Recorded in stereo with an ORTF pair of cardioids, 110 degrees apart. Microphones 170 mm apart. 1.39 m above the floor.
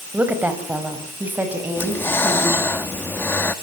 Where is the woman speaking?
10° right, 6 m.